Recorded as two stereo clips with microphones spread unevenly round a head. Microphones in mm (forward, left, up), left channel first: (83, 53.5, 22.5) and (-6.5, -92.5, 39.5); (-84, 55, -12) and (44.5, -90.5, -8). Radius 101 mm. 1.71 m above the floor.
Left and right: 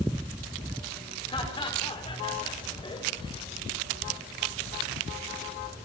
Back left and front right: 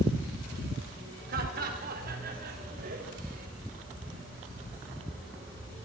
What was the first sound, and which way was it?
Laughter, 5° right.